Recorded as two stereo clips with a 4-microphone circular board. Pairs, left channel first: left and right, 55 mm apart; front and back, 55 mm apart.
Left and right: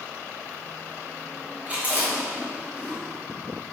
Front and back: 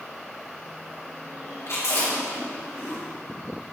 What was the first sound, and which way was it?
Chewing, 30° right.